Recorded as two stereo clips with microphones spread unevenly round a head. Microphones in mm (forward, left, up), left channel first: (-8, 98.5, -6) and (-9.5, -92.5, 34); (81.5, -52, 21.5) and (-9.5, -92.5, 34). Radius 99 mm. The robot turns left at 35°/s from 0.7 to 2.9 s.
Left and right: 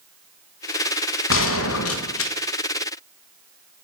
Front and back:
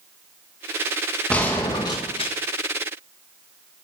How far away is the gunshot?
About 1.7 m.